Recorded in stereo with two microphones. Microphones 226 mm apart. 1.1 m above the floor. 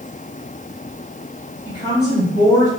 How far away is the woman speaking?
About 1.6 m.